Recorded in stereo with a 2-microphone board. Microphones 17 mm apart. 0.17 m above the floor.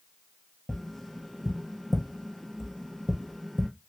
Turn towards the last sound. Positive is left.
turn(degrees=15)  # may be behind; listen again after turning